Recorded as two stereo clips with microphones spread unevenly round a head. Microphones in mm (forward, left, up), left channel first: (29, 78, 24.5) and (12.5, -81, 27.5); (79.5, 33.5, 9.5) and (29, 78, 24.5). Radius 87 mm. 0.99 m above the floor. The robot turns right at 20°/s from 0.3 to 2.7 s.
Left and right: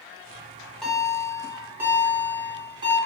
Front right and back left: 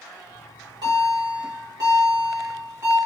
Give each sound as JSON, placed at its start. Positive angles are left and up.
{"t": 0.3, "sound": "a bell", "azimuth_deg": 160, "distance_m": 1.3}